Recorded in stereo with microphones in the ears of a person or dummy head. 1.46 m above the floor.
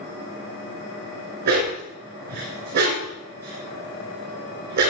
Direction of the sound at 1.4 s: 55° right (ahead or behind).